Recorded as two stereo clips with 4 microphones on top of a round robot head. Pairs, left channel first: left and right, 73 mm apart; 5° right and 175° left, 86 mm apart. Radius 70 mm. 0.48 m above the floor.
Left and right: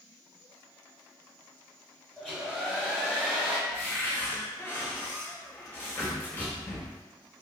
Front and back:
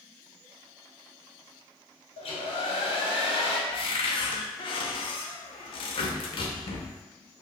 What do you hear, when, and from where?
2.2 s a hair dryer: 5° left, 0.8 m
3.7 s a cupboard door: 20° left, 0.5 m